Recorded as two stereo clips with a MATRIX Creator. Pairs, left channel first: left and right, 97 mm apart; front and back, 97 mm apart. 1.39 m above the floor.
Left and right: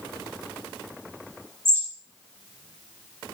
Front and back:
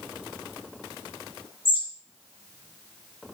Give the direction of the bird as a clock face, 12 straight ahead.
1 o'clock.